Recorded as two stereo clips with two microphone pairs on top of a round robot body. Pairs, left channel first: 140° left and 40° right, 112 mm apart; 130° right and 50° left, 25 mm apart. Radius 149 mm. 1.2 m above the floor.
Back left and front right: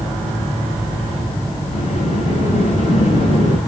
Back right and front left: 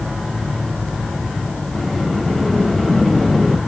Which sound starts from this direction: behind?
A sliding door, at 1.7 s.